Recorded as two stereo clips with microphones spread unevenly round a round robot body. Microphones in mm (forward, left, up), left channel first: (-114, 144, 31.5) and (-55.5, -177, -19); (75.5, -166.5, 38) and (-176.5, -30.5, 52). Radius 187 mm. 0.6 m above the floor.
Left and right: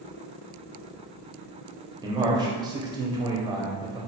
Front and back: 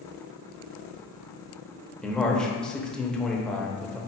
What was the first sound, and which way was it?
A man speaking, 105° right.